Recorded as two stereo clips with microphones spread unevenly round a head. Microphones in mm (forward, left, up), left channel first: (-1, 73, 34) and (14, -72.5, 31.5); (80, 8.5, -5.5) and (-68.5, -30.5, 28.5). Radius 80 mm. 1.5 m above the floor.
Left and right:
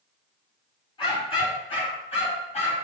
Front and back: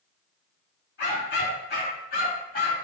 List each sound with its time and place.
1.0 s a dog barking: 40° left, 6 m; by 2.7 s 55° left, 6.5 m